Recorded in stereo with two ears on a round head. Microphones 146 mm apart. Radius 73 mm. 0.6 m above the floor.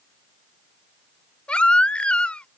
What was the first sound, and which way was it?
A baby crying, 10° left (ahead or behind).